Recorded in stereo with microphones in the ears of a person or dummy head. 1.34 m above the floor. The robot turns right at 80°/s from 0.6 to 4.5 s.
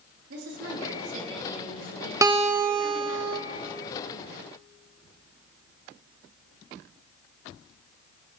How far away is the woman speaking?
About 3 m.